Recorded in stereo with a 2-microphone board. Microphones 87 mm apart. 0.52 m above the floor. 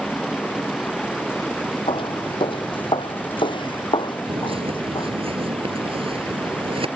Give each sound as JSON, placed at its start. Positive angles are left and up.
{"t": 0.0, "sound": "running water", "side_deg": 0}
{"t": 1.9, "sound": "footsteps", "side_deg": 65}
{"t": 4.3, "sound": "a bird", "side_deg": -80}